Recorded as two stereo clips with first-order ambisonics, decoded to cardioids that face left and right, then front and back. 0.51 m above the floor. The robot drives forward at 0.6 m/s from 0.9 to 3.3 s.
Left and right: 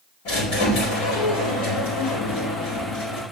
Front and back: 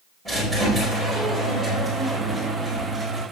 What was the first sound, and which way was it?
A squeak, 85° left.